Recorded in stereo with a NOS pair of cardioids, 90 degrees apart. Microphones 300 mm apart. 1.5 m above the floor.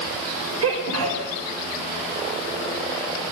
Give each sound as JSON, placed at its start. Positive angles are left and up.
{"t": 0.6, "sound": "a sneeze", "azimuth_deg": -55, "distance_m": 6.0}